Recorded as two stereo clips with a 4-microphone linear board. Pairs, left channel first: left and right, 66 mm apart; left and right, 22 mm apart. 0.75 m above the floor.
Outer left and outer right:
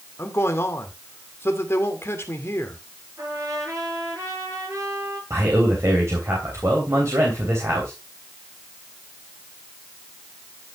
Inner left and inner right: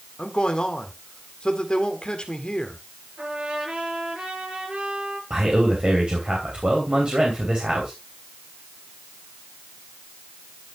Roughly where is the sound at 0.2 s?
Left.